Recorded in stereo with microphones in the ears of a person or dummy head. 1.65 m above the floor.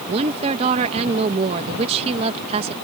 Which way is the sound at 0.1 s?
35° right (ahead or behind).